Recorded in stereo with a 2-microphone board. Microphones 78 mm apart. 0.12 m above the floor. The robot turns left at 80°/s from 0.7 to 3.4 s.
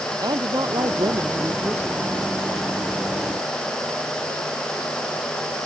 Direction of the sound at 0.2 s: 70° right.